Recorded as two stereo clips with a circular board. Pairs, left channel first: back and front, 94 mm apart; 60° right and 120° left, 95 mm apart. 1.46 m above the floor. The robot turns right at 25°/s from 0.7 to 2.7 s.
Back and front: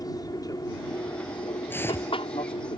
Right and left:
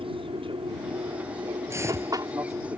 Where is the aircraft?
135° left; by 2.8 s 175° right.